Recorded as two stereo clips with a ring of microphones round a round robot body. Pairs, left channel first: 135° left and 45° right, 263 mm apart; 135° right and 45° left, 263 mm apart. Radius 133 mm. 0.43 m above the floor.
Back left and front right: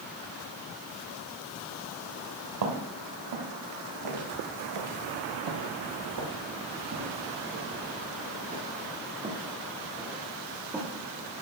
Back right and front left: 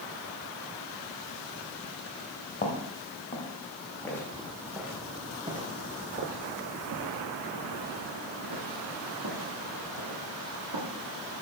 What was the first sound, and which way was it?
Footsteps, 70° right.